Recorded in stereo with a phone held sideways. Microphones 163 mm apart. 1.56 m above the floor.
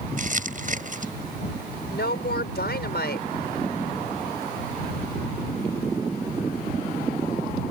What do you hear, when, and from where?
0.2 s crumpling: 55° right (ahead or behind)
1.9 s a woman speaking: 80° left